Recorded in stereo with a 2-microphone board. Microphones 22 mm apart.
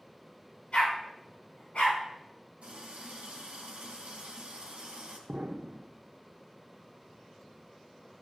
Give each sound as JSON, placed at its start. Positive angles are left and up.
{"t": 0.7, "sound": "a dog barking", "side_deg": 45, "distance_m": 4.5}
{"t": 2.6, "sound": "a running tap", "side_deg": -65, "distance_m": 2.5}
{"t": 5.3, "sound": "an explosion", "side_deg": -85, "distance_m": 0.6}